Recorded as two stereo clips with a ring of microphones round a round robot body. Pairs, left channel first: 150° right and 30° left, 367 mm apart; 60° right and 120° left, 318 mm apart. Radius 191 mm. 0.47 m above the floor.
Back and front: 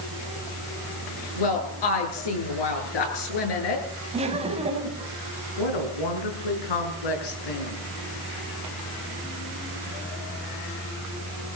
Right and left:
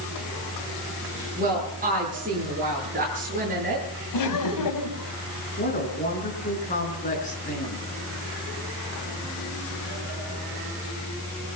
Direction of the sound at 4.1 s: 45° right.